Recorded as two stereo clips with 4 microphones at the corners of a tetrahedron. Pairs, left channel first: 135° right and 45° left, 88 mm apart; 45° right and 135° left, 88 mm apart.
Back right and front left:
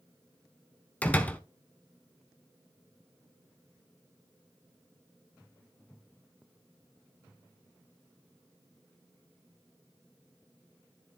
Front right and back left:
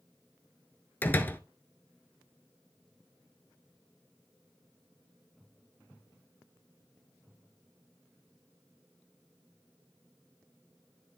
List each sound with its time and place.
1.0 s a door slam: 85° right, 0.8 m